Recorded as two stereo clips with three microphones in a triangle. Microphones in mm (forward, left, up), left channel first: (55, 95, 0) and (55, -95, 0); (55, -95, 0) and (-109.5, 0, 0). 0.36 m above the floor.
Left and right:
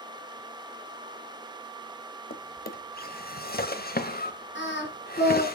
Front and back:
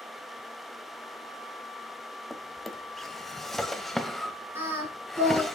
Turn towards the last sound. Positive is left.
turn(degrees=75)